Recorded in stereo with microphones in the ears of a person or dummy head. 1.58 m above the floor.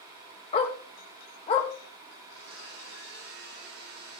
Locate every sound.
0.5 s a dog barking: 35° left (ahead or behind), 2 m
2.2 s a blender: 70° right (ahead or behind), 8.5 m